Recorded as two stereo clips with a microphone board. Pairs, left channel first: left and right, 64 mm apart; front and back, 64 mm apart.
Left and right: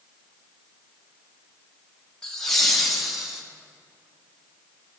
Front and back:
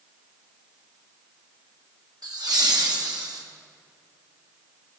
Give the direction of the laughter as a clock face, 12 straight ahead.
6 o'clock.